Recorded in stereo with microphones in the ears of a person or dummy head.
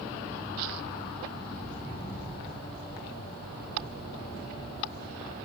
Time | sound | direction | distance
1.6 | footsteps | 40° left (ahead or behind) | 3.5 m